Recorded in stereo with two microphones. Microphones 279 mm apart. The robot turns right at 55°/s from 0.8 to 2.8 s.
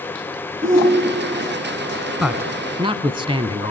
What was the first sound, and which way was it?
A shout, 25° right (ahead or behind).